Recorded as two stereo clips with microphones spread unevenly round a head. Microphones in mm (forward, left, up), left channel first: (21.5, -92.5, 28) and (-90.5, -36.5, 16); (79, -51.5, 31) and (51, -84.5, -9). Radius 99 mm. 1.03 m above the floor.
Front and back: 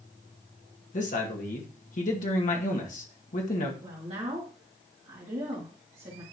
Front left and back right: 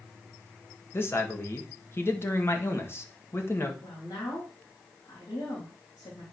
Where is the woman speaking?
105° left, 2.5 m.